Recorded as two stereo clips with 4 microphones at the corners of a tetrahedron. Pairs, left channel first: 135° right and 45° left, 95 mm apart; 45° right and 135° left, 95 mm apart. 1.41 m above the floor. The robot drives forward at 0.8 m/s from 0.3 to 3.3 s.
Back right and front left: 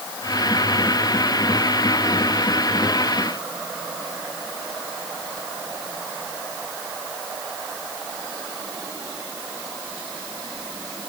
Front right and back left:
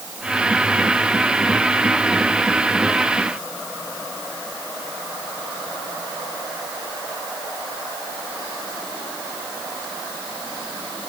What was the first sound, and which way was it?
Only background noise.